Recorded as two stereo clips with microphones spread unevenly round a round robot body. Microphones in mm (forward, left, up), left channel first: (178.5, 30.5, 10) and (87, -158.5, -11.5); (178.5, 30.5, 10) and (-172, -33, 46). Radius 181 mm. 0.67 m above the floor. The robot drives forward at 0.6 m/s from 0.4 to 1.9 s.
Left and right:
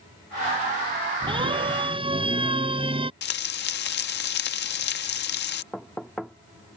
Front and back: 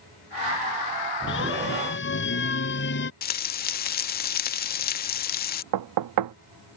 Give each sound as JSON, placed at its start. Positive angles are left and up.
{"t": 1.3, "sound": "a siren", "azimuth_deg": -50}
{"t": 3.2, "sound": "frying", "azimuth_deg": 55}
{"t": 5.7, "sound": "knocking", "azimuth_deg": 155}